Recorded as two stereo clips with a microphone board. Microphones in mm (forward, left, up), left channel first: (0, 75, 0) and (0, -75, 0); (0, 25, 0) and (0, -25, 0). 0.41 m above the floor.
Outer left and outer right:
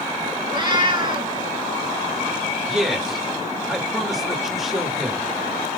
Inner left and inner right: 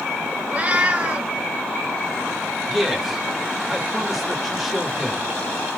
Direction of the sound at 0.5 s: 30° right (ahead or behind).